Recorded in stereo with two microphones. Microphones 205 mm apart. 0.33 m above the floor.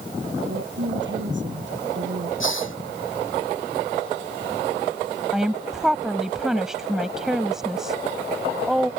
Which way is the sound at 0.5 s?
65° right (ahead or behind).